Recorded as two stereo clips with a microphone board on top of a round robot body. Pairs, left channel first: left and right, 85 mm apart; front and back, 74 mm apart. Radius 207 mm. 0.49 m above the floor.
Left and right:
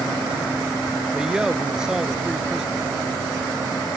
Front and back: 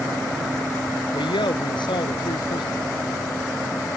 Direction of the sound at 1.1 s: 10° right.